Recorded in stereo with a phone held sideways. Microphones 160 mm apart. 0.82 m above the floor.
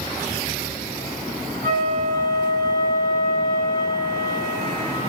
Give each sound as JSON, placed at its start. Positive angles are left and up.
{"t": 1.6, "sound": "a flute", "side_deg": -70, "distance_m": 7.5}